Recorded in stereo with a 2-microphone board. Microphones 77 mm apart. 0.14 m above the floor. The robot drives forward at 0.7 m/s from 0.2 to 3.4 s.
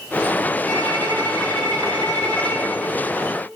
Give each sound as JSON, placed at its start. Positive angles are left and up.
{"t": 0.7, "sound": "a violin", "side_deg": 25, "distance_m": 2.5}